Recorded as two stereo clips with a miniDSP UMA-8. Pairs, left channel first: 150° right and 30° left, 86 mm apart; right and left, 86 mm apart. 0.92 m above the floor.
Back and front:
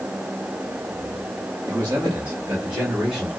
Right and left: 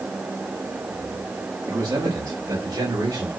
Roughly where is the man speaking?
Left.